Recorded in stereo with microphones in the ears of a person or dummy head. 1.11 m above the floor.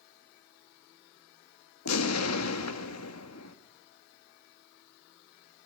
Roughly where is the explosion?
Left.